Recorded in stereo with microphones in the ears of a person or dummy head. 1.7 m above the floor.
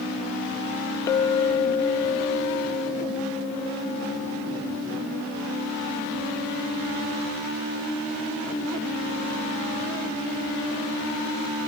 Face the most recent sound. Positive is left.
turn(degrees=20)  # may be behind; listen again after turning